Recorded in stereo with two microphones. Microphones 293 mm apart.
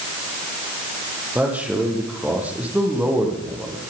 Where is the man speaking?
5° right (ahead or behind), 9.5 m.